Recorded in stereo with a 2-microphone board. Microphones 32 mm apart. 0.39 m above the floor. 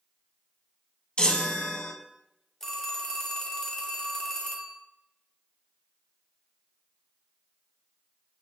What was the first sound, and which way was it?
A chime, 35° left (ahead or behind).